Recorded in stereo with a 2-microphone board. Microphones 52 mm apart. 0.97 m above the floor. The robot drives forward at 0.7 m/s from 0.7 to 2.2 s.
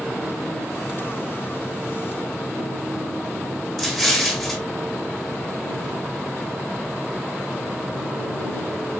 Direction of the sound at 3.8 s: 5° left (ahead or behind).